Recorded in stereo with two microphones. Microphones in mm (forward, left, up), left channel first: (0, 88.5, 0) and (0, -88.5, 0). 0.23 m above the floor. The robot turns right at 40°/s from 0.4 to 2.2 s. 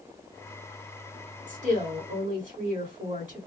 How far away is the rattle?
I don't hear a rattle.